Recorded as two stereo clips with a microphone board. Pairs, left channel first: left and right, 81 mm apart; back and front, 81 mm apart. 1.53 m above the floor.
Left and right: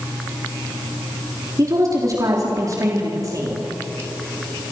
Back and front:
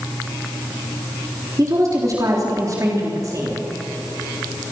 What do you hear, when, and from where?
1.6 s a woman speaking: 45° right, 3.5 m